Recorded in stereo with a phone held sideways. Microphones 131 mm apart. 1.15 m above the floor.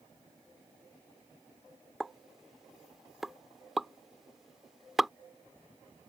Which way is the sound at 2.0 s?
Centre (ahead or behind).